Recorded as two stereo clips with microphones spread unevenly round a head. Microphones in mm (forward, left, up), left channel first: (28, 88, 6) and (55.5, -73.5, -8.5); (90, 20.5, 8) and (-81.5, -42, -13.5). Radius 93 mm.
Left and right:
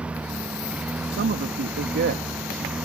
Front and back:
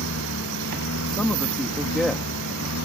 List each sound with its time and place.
0.0 s a lawn mower: 5° left
1.1 s a man speaking: 65° right